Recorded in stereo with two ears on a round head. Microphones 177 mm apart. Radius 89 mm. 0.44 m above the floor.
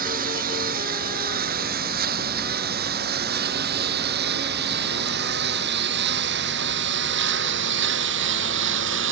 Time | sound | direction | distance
0.0 | a lawn mower | 50° right (ahead or behind) | ?